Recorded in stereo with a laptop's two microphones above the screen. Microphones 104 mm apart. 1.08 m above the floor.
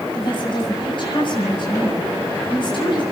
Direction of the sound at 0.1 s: 50° left (ahead or behind).